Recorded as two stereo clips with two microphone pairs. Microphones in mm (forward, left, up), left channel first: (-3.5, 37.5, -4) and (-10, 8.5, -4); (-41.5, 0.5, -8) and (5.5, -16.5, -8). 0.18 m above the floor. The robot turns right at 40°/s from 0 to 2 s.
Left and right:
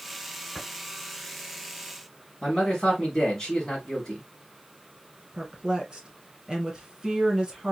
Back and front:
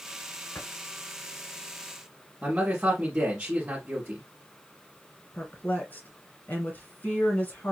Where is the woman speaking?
165° right, 1.9 m.